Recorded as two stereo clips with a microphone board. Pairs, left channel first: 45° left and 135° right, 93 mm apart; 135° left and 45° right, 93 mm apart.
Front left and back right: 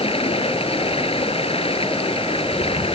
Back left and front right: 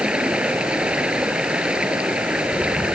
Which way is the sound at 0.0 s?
35° left.